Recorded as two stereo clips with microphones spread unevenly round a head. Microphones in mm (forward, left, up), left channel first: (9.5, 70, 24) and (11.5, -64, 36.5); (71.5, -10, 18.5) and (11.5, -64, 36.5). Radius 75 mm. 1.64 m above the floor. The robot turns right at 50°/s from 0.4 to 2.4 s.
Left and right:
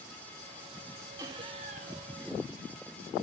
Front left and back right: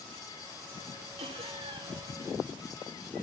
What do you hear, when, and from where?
1.2 s laughter: 155° right, 4 m; by 2.1 s 110° right, 4 m